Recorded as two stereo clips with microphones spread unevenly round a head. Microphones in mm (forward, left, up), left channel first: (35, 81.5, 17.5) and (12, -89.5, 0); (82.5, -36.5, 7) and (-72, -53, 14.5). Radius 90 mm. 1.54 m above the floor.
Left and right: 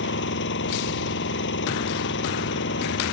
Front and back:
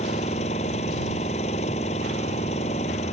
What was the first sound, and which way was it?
An engine running, 65° left.